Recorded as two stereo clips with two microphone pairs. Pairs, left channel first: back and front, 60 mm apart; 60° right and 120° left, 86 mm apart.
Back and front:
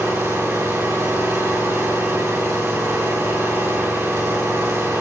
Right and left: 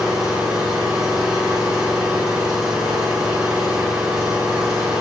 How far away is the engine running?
About 6.5 m.